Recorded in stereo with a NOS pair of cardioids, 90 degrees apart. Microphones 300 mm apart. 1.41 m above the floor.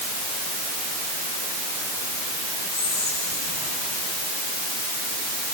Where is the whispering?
65° left, 8 m.